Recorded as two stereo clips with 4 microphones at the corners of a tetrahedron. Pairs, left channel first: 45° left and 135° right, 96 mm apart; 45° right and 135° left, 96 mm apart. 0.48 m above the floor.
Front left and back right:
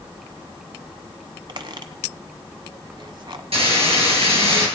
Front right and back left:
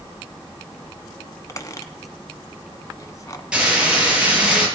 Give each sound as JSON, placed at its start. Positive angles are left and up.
{"t": 1.5, "sound": "a squeak", "azimuth_deg": -100, "distance_m": 1.0}
{"t": 3.5, "sound": "frying", "azimuth_deg": -145, "distance_m": 5.5}